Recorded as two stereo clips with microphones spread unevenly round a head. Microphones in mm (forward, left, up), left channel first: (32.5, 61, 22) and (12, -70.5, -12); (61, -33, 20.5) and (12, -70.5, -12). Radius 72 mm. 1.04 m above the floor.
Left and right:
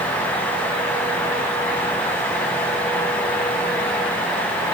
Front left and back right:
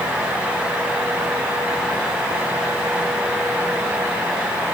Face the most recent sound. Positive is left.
No sound to turn to.